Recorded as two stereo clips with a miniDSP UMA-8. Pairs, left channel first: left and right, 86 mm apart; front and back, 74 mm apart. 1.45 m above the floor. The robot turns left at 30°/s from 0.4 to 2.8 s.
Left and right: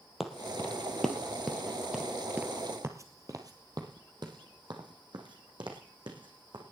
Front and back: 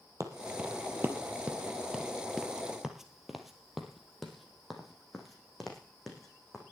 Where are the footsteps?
Straight behind, 2 m; by 6.6 s 85° right, 4.5 m.